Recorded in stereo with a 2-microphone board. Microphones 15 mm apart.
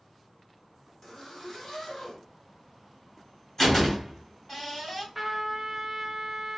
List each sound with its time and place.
1.0 s a zipper: 40° left (ahead or behind), 1.4 m
3.6 s a door slam: 20° left (ahead or behind), 1.8 m
5.2 s a trumpet: 20° right (ahead or behind), 0.8 m